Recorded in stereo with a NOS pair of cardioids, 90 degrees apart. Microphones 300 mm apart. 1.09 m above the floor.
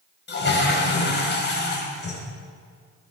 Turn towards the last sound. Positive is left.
turn(degrees=40)